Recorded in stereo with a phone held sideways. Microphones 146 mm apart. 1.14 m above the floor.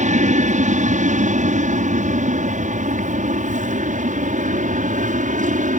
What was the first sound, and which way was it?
An aircraft, 60° right (ahead or behind).